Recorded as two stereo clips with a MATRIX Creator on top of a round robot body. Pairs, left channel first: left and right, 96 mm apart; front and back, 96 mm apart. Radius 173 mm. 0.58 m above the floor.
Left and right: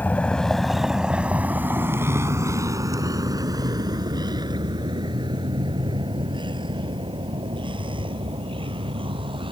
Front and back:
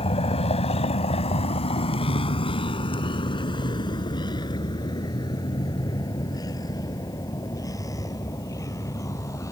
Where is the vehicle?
15° left; by 9.5 s 60° right.